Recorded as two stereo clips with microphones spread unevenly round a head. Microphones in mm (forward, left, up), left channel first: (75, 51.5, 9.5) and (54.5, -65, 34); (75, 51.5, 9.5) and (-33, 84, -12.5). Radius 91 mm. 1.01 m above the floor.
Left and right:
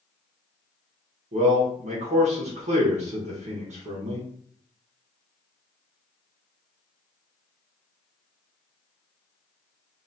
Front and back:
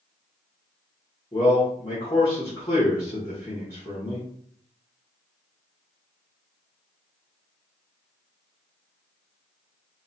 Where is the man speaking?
95° right, 0.9 m.